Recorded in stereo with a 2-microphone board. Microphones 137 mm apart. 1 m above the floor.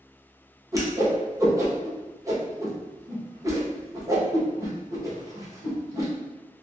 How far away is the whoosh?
About 0.8 m.